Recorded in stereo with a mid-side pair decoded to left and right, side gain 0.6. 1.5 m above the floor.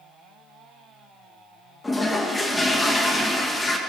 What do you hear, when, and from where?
1.8 s a toilet flushing: 20° left, 1.4 m